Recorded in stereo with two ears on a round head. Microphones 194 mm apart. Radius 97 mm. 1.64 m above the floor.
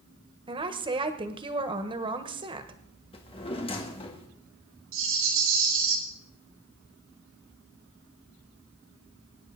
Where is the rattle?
65° right (ahead or behind), 4 m.